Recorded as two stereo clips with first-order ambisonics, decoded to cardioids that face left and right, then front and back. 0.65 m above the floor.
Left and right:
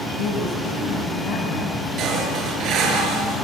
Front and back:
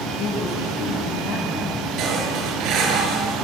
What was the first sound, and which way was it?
A woman speaking, 50° left.